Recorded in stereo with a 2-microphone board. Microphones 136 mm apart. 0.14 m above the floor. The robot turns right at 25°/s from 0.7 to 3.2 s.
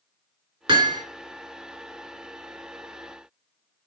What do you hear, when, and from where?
0.7 s hammering: 35° right (ahead or behind), 1.8 m